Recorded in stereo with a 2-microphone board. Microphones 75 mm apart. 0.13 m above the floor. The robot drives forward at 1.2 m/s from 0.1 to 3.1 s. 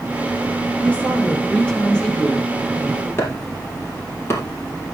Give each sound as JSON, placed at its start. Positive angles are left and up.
{"t": 0.8, "sound": "a woman speaking", "side_deg": 15, "distance_m": 2.5}
{"t": 3.2, "sound": "chopping", "side_deg": 30, "distance_m": 4.0}